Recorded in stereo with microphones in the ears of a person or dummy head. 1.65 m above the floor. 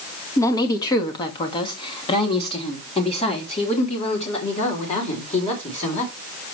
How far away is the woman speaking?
About 2.0 m.